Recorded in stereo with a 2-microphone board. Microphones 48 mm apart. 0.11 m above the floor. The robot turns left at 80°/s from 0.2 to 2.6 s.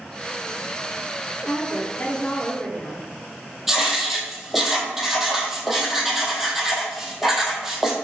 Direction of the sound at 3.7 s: 5° right (ahead or behind).